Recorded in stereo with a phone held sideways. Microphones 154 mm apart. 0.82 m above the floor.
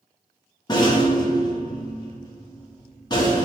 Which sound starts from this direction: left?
A rattle, at 0.7 s.